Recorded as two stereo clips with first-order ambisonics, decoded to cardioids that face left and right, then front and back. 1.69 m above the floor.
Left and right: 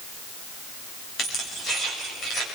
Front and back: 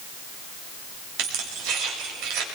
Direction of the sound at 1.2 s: 155° left.